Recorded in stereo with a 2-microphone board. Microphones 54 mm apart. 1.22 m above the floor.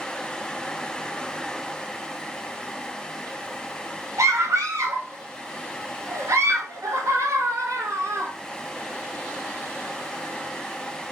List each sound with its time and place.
4.2 s a scream: 75° right (ahead or behind), 2 m